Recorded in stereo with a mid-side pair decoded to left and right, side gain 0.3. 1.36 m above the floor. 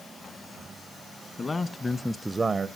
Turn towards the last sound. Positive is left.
turn(degrees=-75)